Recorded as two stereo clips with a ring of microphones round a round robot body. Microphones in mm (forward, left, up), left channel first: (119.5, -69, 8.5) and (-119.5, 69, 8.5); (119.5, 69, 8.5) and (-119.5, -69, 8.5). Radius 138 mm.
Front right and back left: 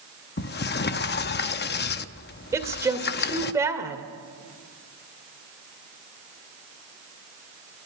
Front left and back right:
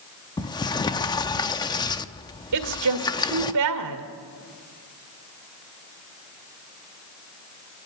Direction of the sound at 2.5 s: 130° right.